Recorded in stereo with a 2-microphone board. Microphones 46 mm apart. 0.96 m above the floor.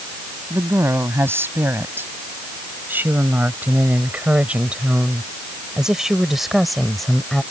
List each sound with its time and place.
0.5 s a woman speaking: 60° right (ahead or behind); by 7.4 s 10° left (ahead or behind)